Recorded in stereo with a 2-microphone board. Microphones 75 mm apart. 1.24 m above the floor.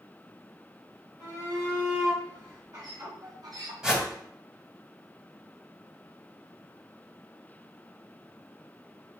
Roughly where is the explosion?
No explosion in this recording.